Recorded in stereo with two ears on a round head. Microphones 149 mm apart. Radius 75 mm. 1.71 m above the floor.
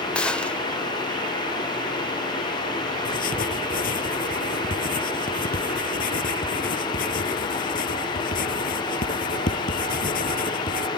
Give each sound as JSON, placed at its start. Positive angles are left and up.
{"t": 0.1, "sound": "a gunshot", "side_deg": 5}
{"t": 3.0, "sound": "writing", "side_deg": 50}